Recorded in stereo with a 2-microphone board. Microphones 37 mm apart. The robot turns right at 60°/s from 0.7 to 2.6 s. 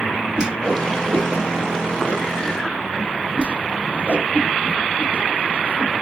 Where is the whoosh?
25° right (ahead or behind), 1.0 m; by 6.0 s 35° right (ahead or behind), 1.0 m.